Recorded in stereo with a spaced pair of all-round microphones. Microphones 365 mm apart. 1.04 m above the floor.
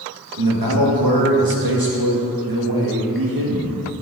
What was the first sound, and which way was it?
A man speaking, 75° right (ahead or behind).